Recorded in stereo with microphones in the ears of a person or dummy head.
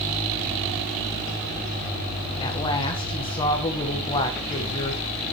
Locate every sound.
2.4 s a woman speaking: 25° left (ahead or behind), 2.0 m